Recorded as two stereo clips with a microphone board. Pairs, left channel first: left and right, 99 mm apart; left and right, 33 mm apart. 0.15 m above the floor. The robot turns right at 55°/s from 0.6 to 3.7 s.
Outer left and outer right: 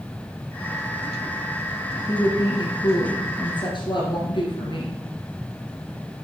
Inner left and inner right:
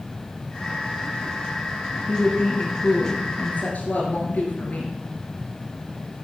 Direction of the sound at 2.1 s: 25° left.